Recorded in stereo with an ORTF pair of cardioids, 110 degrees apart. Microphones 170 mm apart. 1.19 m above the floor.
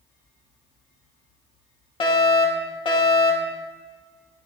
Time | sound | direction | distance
2.0 | a fire alarm | 30° left | 3 m